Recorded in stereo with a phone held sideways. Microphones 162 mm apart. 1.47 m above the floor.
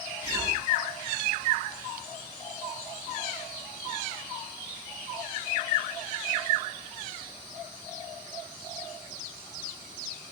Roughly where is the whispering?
Left.